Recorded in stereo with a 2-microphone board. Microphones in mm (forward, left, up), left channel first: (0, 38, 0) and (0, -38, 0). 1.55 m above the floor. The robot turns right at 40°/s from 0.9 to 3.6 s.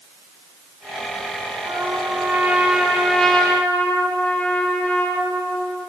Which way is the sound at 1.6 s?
60° right.